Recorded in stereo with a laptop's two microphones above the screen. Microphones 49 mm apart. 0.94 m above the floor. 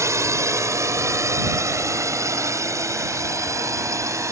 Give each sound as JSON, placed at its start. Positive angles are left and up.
{"t": 0.0, "sound": "a drone", "side_deg": -70}